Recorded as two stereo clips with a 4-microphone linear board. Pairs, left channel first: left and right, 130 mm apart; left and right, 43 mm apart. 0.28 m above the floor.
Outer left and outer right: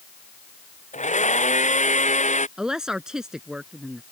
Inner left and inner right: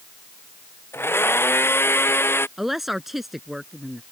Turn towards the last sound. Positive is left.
turn(degrees=-5)  # may be behind; listen again after turning